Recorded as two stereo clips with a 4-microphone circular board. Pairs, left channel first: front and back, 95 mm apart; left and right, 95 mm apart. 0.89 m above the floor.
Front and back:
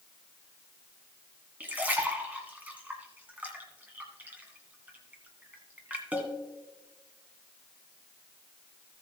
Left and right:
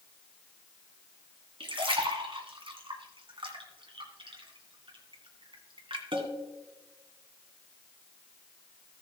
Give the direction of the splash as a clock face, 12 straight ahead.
4 o'clock.